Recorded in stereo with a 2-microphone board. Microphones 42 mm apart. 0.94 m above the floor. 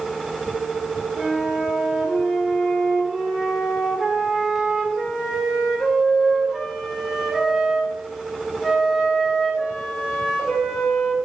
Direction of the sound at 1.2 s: 5° right (ahead or behind).